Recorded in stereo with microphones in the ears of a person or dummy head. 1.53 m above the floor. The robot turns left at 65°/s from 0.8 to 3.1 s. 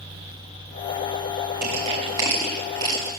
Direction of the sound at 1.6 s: 55° right (ahead or behind).